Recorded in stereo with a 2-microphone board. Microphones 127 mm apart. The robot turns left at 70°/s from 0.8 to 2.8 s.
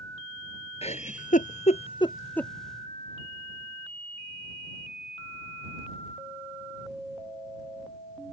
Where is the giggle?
55° left (ahead or behind); by 2.5 s 5° left (ahead or behind).